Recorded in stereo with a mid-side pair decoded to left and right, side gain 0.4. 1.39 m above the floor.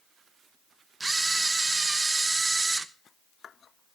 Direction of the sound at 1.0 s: 25° right.